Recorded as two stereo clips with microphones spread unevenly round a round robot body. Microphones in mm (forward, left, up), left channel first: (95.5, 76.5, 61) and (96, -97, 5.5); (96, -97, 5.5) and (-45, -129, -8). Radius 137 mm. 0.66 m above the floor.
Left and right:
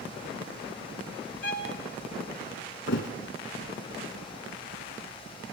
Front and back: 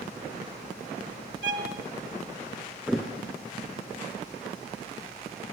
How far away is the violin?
About 0.7 m.